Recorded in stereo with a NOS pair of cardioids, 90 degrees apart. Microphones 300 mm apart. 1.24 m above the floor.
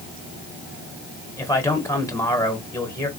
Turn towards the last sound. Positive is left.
turn(degrees=10)